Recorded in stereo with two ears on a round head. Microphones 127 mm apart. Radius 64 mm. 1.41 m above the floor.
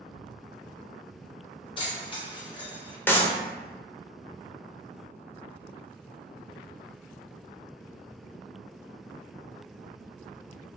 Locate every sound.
1.8 s keys jangling: 40° left (ahead or behind), 0.9 m
3.1 s a clap: 15° left (ahead or behind), 0.6 m